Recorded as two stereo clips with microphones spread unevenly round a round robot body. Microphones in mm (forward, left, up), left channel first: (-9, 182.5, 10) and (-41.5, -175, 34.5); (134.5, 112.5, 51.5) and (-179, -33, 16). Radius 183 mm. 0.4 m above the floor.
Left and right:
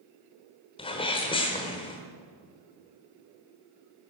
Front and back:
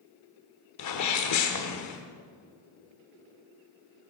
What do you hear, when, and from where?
0.8 s a sneeze: 20° left, 1.1 m